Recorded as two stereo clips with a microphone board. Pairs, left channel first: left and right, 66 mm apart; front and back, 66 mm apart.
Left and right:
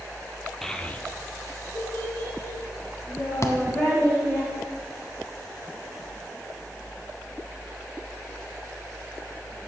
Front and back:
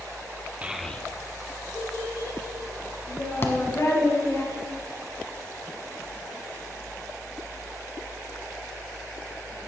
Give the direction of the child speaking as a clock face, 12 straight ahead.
6 o'clock.